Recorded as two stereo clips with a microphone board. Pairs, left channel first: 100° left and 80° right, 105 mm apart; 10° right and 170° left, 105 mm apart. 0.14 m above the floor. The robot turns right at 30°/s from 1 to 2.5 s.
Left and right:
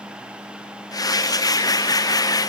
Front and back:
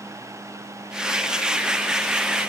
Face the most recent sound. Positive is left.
No sound to turn to.